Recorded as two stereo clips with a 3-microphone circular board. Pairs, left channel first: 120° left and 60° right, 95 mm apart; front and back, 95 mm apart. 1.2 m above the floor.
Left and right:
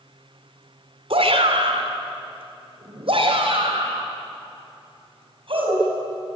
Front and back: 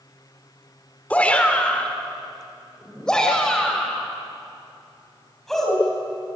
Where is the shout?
75° right, 3.5 m; by 5.9 s 85° right, 7.5 m.